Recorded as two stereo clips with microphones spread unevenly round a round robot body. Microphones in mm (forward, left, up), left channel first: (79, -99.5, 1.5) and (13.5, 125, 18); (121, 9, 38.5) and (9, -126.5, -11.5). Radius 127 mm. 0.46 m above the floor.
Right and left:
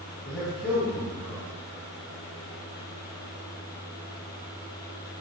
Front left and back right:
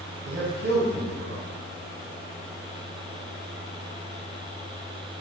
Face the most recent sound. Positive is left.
turn(degrees=-160)